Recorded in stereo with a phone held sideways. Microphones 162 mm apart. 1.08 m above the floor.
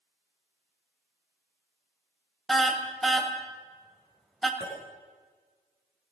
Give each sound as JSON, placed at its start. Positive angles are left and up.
{"t": 2.5, "sound": "a car horn", "side_deg": 0, "distance_m": 2.0}
{"t": 4.6, "sound": "a clink", "side_deg": -5, "distance_m": 8.0}